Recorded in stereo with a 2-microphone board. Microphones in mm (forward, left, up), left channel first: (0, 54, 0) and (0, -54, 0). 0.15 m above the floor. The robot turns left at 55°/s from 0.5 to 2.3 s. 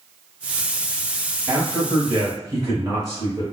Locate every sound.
1.5 s a man speaking: 55° right, 1.7 m; by 3.4 s 100° right, 1.7 m